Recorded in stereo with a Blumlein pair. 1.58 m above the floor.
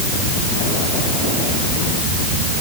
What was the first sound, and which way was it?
Only background noise.